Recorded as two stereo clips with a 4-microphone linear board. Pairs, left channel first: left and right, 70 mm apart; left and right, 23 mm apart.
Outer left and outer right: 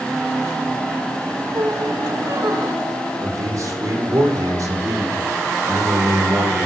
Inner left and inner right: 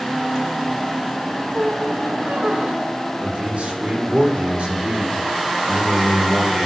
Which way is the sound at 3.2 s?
55° right (ahead or behind).